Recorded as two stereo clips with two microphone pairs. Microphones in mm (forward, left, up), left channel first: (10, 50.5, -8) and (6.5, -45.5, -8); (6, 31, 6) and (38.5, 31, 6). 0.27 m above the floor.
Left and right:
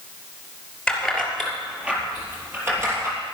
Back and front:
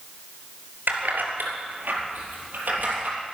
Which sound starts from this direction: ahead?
Keys jangling, at 0.9 s.